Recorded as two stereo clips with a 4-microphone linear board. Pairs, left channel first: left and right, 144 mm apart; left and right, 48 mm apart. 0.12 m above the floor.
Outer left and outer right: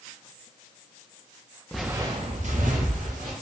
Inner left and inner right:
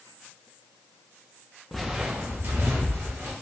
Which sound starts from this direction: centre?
Footsteps, at 1.7 s.